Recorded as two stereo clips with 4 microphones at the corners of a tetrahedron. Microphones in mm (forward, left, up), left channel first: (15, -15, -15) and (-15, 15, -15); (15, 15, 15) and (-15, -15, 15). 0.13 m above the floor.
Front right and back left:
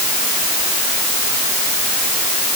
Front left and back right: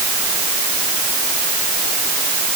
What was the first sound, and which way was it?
Only background noise.